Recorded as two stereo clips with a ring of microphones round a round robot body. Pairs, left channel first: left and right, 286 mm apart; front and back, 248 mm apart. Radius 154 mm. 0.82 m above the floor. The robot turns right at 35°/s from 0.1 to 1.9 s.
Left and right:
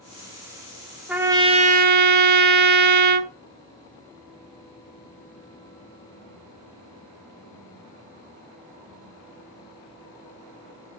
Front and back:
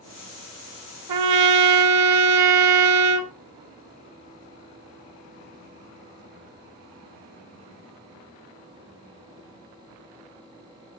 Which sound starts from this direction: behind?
A trumpet, at 1.1 s.